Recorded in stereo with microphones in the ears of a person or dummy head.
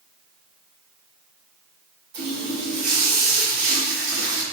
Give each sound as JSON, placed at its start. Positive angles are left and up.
{"t": 2.1, "sound": "a running tap", "side_deg": -65, "distance_m": 1.4}